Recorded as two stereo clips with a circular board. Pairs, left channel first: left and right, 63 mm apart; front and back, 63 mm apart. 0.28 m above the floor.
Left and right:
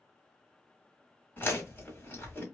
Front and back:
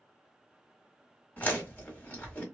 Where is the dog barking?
No dog barking in this recording.